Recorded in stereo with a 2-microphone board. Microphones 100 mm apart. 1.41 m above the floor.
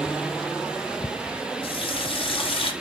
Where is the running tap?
60° left (ahead or behind), 0.8 m.